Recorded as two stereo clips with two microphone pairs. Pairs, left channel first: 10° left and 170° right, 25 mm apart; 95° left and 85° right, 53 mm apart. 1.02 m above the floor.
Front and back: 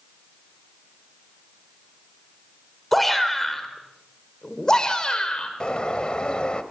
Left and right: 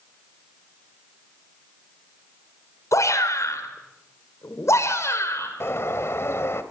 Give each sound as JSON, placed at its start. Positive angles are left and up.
{"t": 2.9, "sound": "a shout", "azimuth_deg": 100, "distance_m": 4.5}
{"t": 5.6, "sound": "a bird", "azimuth_deg": 65, "distance_m": 1.8}